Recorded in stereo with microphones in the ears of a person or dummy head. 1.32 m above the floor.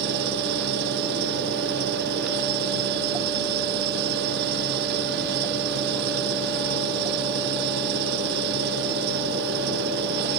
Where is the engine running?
55° right (ahead or behind).